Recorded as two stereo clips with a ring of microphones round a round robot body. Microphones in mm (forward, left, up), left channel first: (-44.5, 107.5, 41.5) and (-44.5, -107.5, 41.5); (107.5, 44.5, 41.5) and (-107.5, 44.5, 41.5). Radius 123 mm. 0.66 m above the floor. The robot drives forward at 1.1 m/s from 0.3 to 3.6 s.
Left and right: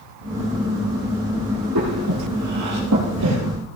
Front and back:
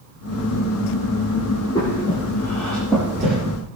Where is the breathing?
75° right, 6.5 m; by 3.4 s 95° right, 6.5 m.